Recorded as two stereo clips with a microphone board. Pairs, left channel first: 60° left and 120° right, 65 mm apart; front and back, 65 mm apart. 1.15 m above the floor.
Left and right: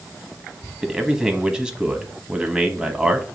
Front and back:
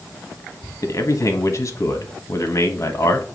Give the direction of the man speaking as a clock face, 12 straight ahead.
2 o'clock.